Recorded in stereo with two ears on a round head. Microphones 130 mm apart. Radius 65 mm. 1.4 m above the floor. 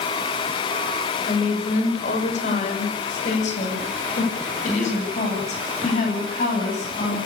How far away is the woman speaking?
About 6.5 m.